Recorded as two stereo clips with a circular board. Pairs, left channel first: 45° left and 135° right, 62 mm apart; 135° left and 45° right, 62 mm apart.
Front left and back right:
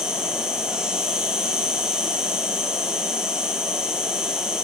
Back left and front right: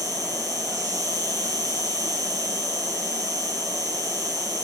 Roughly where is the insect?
Ahead right.